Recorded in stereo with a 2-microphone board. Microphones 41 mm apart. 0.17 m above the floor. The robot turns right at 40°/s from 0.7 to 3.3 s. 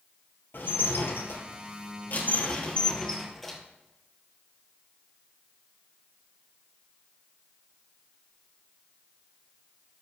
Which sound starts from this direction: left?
Dishes clattering, at 0.5 s.